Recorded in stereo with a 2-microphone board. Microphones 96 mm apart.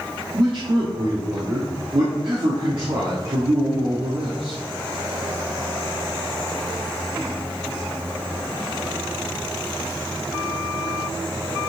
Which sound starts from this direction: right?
A man speaking, at 0.3 s.